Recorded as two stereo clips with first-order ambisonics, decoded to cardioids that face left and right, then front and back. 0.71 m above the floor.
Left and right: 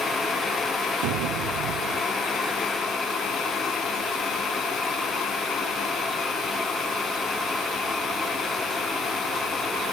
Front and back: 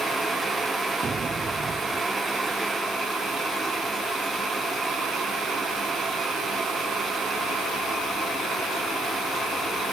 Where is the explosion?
110° right.